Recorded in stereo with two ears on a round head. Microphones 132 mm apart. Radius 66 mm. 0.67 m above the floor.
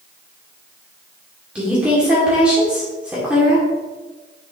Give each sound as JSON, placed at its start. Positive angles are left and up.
{"t": 1.6, "sound": "a woman speaking", "side_deg": -10, "distance_m": 1.9}